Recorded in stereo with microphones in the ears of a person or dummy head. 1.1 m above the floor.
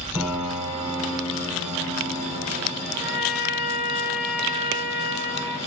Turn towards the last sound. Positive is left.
turn(degrees=-25)  # may be behind; listen again after turning